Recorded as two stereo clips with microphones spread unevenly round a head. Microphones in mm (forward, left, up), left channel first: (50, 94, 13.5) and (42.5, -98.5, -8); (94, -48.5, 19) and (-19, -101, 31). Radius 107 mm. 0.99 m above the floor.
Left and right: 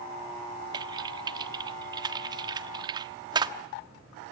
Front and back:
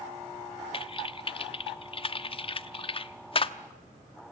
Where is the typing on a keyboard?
20° right, 1.0 m.